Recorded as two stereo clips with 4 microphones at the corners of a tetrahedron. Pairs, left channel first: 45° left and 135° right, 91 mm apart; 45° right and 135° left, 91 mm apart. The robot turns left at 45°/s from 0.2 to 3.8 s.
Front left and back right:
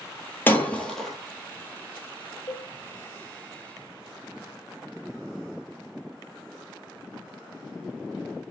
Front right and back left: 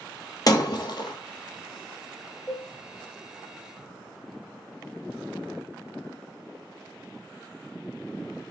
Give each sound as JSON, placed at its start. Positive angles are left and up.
{"t": 0.5, "sound": "breaking glass", "azimuth_deg": -15, "distance_m": 0.8}
{"t": 2.5, "sound": "a cowbell", "azimuth_deg": 20, "distance_m": 1.5}